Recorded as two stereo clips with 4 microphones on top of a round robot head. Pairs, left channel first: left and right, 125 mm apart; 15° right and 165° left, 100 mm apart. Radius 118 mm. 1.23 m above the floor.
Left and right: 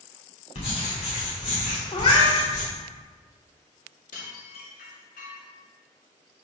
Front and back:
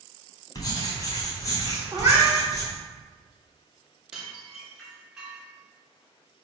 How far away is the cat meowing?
About 0.9 m.